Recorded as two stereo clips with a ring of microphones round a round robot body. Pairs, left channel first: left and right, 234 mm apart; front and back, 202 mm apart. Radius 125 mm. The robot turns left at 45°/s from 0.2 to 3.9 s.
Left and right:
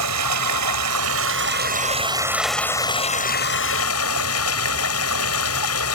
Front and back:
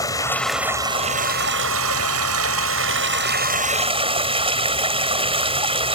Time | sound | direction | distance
0.0 | running water | 75° right | ?